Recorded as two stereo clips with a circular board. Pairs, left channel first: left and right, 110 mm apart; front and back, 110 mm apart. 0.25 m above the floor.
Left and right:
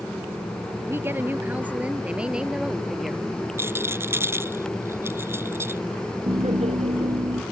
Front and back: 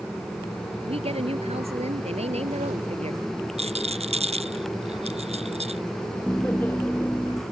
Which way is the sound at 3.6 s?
160° right.